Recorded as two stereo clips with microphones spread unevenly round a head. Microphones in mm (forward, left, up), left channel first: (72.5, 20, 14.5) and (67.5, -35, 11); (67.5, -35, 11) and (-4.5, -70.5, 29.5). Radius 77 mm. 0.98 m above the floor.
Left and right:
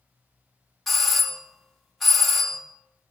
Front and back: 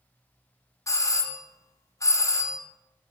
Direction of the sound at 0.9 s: Straight ahead.